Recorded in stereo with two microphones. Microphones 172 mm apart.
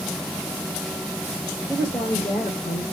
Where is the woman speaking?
35° left (ahead or behind), 2.5 m.